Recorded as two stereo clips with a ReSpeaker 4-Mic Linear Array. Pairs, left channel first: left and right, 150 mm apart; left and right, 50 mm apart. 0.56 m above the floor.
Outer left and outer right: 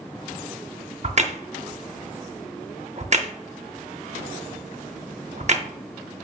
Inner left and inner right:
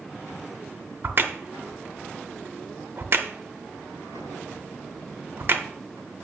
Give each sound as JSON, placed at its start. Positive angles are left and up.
{"t": 1.0, "sound": "a crack", "side_deg": -50, "distance_m": 0.6}